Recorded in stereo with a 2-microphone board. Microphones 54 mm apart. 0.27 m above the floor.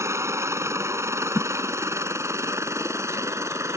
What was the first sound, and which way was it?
A helicopter, 60° right (ahead or behind).